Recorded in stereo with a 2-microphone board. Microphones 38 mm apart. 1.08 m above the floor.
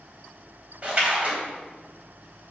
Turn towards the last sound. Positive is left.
turn(degrees=-30)  # may be behind; listen again after turning